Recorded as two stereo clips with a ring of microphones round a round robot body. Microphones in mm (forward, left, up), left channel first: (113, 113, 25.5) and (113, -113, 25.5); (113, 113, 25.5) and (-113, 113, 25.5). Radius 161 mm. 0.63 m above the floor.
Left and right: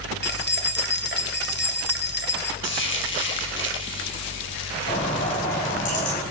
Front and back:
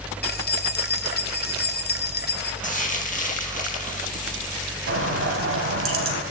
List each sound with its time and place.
0.2 s keys jangling: 45° left, 2.0 m
2.6 s frying: 55° left, 4.5 m
4.9 s a bird: 155° left, 3.5 m